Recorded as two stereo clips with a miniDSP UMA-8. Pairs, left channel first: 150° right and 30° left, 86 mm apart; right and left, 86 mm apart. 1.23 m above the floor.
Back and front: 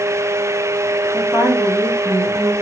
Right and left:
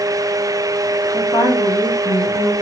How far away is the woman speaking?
About 2 m.